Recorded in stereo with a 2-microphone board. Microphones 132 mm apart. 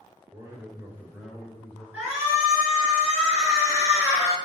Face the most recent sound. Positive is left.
turn(degrees=-10)  # may be behind; listen again after turning